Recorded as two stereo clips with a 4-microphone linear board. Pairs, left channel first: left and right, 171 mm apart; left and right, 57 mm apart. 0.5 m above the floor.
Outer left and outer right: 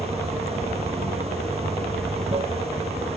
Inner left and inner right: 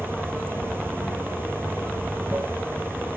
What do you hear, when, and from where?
0.0 s running water: 35° right (ahead or behind)